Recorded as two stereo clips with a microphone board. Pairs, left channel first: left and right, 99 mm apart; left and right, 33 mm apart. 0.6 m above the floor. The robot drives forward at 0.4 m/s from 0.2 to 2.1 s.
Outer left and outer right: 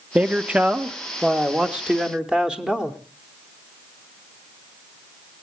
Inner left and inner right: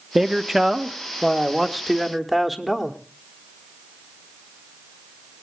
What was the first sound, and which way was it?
A man speaking, 10° right (ahead or behind).